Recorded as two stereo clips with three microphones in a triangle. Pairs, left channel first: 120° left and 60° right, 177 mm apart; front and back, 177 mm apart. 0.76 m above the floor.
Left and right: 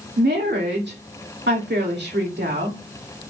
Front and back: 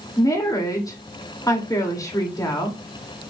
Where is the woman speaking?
70° right, 2.5 m.